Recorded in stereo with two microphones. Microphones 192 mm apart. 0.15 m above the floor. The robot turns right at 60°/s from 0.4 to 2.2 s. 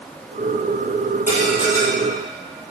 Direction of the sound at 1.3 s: 135° left.